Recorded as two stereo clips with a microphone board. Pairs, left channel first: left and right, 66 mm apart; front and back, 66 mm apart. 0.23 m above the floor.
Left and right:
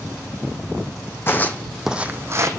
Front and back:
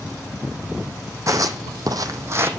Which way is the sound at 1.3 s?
145° left.